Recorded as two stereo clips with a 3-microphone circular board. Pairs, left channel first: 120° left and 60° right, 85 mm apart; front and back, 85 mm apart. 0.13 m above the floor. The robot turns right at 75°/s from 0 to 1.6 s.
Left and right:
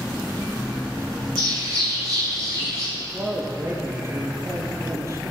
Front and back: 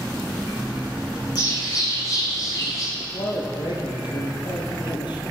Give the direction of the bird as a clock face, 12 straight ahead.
1 o'clock.